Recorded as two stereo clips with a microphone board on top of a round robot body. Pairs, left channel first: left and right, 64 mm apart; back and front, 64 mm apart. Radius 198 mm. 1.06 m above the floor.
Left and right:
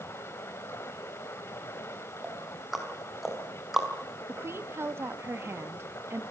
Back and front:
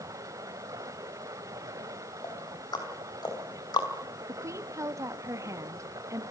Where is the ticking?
175° right, 5 m.